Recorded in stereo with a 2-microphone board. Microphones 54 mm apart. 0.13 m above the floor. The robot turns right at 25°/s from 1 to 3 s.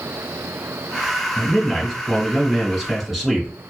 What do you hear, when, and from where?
1.4 s a man speaking: 15° left (ahead or behind), 1.5 m; by 3.5 s 5° right (ahead or behind), 1.5 m